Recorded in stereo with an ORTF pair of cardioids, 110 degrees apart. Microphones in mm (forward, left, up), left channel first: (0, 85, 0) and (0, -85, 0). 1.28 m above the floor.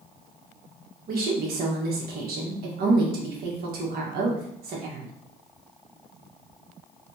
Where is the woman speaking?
65° right, 1.5 m.